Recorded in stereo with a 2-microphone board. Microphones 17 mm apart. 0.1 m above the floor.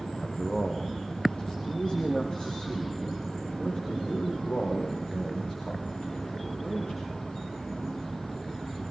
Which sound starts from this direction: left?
A man speaking, at 0.2 s.